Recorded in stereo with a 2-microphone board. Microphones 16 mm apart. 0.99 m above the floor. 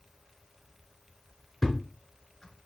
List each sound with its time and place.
1.6 s a thud: 35° left (ahead or behind), 1.6 m